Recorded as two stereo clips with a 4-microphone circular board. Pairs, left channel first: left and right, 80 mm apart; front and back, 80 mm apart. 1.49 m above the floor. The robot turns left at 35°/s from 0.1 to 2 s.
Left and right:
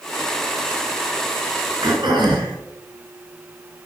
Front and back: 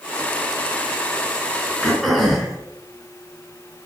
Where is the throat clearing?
85° right, 5.5 m; by 2.5 s 90° right, 5.5 m.